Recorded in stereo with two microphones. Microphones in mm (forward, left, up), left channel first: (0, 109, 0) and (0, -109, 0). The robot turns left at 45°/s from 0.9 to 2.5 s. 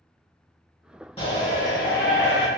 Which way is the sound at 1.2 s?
145° left.